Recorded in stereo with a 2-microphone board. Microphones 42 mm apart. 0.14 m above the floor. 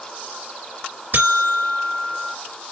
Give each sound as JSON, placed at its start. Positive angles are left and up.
{"t": 1.1, "sound": "a buzzer", "side_deg": -50, "distance_m": 2.0}